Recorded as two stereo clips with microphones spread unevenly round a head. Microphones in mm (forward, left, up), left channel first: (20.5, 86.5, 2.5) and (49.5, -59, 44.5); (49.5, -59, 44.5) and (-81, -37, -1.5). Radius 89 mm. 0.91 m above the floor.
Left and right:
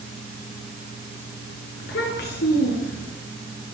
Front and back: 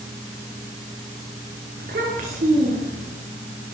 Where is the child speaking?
130° left, 8 m; by 3.1 s 125° left, 7 m.